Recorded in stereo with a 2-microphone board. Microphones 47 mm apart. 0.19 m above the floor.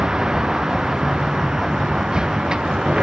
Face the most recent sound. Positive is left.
turn(degrees=-15)  # may be behind; listen again after turning